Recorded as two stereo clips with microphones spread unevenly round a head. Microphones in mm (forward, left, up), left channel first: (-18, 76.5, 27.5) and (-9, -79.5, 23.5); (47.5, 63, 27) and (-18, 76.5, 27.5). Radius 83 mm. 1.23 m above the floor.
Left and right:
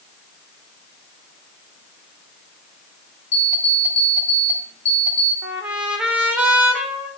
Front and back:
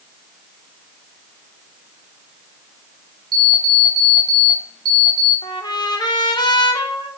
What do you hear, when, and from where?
3.3 s an alarm clock: 150° left, 2.5 m
5.4 s a trumpet: 5° right, 1.3 m